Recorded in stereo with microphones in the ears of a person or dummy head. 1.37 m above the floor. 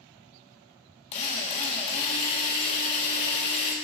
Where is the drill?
30° left (ahead or behind), 1.5 m.